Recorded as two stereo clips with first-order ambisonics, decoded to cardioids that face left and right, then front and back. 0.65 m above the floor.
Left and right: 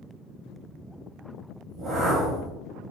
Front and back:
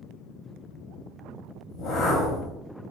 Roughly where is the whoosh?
Ahead right.